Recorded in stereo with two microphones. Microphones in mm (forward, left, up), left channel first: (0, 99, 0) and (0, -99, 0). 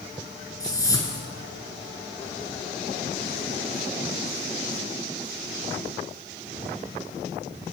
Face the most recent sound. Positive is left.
turn(degrees=15)  # may be behind; listen again after turning